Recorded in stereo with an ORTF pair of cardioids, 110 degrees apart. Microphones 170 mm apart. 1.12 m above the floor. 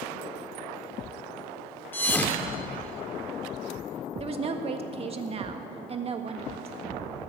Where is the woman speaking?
35° right, 1.6 m.